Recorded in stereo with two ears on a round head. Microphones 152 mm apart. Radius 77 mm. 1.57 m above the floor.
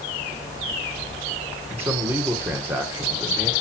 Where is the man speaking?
15° right (ahead or behind), 1.2 m.